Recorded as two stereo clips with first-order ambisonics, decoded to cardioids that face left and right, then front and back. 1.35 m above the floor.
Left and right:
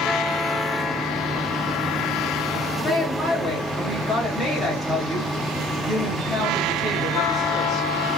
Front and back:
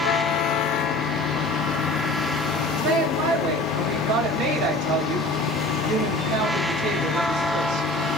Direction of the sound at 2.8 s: 165° left.